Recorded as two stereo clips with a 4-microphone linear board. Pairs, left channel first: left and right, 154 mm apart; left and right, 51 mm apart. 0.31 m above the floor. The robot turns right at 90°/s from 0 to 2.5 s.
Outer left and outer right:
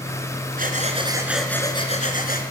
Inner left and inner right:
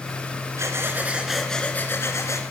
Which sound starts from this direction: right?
Breathing, at 0.6 s.